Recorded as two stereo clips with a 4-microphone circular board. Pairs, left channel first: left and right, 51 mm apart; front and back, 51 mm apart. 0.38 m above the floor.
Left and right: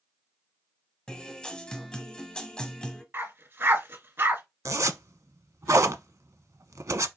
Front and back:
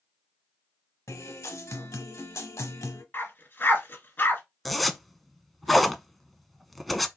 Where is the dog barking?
50° right, 1.7 m.